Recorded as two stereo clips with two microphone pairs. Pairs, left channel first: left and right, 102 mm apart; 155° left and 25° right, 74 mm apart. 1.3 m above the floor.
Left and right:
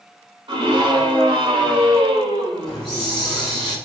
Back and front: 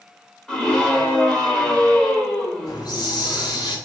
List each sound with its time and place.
0.5 s a scream: 125° right, 4 m
2.6 s a hiss: 175° left, 4.5 m